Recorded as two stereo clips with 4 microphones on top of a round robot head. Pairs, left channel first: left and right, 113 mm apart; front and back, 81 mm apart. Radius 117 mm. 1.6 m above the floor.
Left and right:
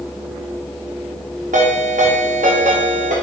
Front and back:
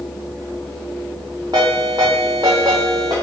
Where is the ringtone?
115° right, 0.6 m.